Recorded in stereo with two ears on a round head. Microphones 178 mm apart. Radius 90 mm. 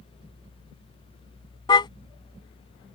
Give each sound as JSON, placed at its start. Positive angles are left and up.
{"t": 1.7, "sound": "a car horn", "side_deg": 25}